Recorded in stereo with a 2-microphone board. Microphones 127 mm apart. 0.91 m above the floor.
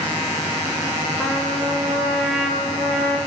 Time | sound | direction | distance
1.2 | a trumpet | 5° left (ahead or behind) | 1.9 m